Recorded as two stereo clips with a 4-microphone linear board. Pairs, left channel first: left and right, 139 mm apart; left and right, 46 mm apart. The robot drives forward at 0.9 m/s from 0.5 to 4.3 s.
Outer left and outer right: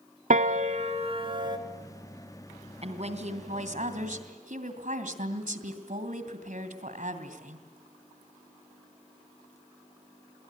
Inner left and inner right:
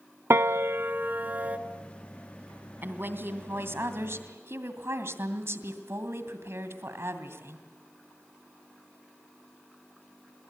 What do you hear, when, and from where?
0.3 s a piano: 70° right (ahead or behind), 0.9 m; by 1.6 s 35° right (ahead or behind), 1.5 m
2.8 s a woman speaking: 50° right (ahead or behind), 3 m; by 7.7 s 70° right (ahead or behind), 2.5 m